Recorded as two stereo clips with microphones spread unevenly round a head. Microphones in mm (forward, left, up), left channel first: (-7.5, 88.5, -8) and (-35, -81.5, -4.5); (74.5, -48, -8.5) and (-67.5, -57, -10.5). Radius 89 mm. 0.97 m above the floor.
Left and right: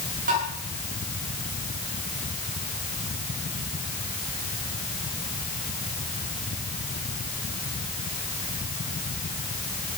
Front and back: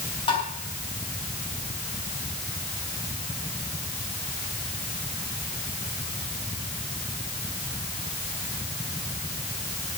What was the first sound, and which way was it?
Tapping, 50° right.